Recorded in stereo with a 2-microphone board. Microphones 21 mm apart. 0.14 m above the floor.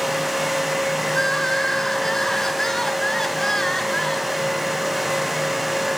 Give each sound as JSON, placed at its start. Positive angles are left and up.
{"t": 1.1, "sound": "crying", "side_deg": 25, "distance_m": 1.8}